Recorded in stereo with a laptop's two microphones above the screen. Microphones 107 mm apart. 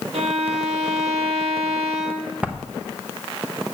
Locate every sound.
0.1 s a violin: 75° right (ahead or behind), 1.1 m
2.4 s writing: 10° right (ahead or behind), 0.8 m